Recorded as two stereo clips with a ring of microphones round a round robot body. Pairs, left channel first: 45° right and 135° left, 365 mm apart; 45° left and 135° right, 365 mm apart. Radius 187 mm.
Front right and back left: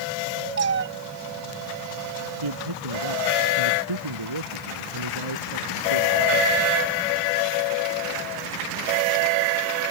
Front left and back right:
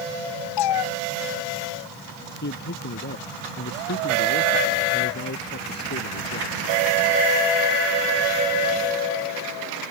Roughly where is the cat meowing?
Left.